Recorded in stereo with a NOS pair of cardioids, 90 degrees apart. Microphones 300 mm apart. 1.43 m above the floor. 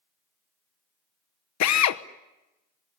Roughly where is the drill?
Ahead left.